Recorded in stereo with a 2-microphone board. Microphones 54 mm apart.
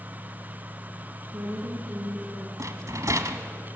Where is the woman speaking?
60° right (ahead or behind), 4.5 m.